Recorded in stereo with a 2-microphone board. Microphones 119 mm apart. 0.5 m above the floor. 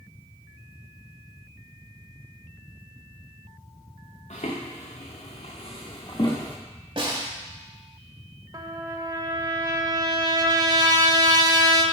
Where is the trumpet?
35° right (ahead or behind), 0.8 m.